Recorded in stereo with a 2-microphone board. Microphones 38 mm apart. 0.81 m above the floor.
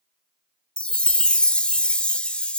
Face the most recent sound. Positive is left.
turn(degrees=30)  # may be behind; listen again after turning